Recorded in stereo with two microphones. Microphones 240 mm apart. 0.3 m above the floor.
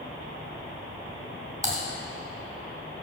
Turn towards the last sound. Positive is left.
turn(degrees=-15)  # may be behind; listen again after turning